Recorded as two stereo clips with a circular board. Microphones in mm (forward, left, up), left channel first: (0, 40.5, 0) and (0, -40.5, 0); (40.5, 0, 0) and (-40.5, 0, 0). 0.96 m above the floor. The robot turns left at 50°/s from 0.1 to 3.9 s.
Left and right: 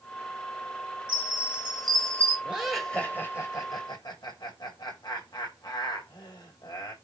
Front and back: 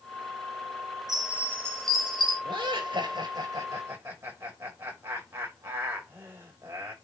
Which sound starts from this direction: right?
A chime, at 1.1 s.